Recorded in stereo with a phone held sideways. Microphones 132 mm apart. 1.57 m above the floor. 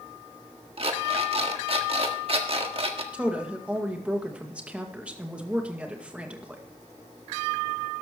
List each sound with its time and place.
0.8 s an alarm clock: 50° right (ahead or behind), 1.5 m
3.1 s a woman speaking: 10° right (ahead or behind), 2.0 m